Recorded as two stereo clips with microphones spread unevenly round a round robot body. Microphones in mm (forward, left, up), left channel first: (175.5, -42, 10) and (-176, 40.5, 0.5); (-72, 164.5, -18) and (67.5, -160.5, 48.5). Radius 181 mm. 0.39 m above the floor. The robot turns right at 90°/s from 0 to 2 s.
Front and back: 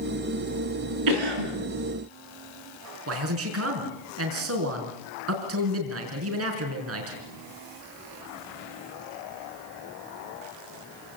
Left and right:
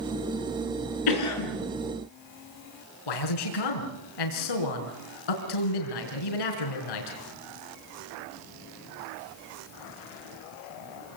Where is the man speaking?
115° left, 4.5 m.